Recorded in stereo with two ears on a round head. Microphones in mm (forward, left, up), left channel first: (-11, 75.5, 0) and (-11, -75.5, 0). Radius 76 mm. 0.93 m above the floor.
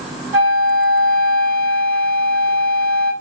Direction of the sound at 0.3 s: 15° right (ahead or behind).